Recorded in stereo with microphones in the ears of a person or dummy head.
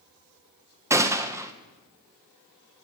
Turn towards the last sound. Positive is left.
turn(degrees=-10)  # may be behind; listen again after turning